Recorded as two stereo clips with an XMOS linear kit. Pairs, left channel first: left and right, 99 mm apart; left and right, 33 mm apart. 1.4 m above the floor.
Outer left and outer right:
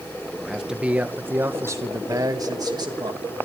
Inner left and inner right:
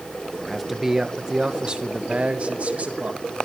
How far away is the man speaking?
About 1.5 m.